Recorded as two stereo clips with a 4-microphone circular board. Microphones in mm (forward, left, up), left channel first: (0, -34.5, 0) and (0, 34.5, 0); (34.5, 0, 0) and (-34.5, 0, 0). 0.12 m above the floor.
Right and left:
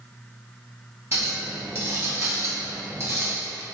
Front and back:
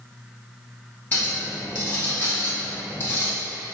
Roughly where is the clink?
Ahead left.